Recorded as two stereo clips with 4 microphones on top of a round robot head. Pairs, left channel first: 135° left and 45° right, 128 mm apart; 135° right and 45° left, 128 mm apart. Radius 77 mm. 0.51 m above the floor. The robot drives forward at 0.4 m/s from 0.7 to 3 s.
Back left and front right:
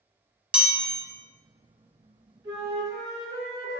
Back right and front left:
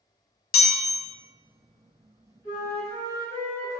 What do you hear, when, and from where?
0.5 s a chime: 125° right, 0.9 m; by 1.0 s 130° right, 1.0 m
2.4 s a flute: 105° right, 1.8 m; by 3.8 s 110° right, 1.8 m